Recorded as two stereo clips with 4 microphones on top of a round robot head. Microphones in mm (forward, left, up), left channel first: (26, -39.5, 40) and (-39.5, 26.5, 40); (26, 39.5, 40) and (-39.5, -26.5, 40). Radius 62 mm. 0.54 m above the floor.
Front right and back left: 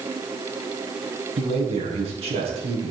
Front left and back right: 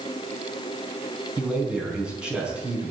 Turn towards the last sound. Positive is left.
turn(degrees=145)